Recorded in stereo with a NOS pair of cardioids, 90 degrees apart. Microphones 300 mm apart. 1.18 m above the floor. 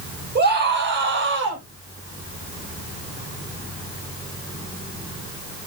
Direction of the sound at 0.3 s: 35° right.